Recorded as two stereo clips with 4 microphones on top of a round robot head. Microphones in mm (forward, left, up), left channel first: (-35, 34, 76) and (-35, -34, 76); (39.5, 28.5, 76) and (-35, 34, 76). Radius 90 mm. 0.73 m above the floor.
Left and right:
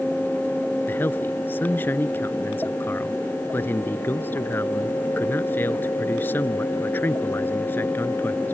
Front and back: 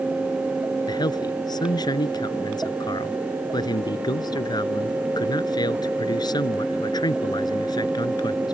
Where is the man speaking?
25° left.